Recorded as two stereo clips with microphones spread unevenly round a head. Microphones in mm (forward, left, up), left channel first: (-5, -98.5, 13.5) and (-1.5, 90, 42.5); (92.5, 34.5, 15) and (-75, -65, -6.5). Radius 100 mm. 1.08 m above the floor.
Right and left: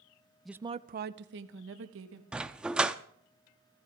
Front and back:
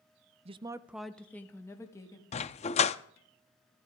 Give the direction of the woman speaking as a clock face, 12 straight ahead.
5 o'clock.